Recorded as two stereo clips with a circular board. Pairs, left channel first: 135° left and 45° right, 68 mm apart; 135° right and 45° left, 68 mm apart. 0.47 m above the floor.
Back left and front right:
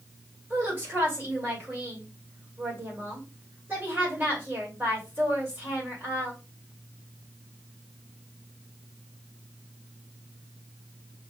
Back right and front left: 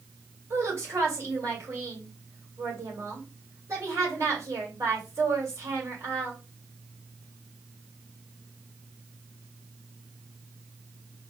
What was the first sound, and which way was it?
A woman speaking, 10° left.